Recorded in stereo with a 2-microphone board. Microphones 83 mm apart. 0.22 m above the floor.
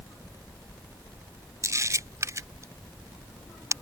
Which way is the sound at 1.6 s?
35° right (ahead or behind).